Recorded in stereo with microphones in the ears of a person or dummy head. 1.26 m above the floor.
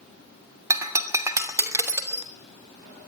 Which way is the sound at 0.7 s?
20° right (ahead or behind).